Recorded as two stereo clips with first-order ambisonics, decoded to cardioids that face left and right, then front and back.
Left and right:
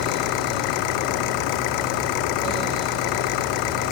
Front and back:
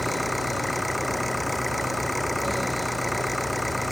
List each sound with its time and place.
0.0 s an engine running: 85° left